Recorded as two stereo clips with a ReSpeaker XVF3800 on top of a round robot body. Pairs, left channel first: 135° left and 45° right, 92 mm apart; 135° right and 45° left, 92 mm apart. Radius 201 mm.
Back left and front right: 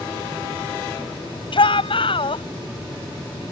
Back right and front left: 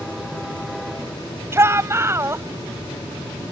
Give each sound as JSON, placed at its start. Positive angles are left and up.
{"t": 1.5, "sound": "a shout", "azimuth_deg": 110}